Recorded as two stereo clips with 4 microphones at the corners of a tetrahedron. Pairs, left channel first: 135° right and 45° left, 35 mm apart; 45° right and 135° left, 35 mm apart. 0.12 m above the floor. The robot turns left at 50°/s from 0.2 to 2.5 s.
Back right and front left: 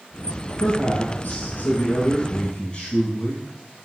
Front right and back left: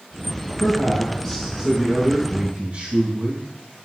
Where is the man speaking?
95° right, 3.5 m; by 3.4 s 170° left, 3.5 m.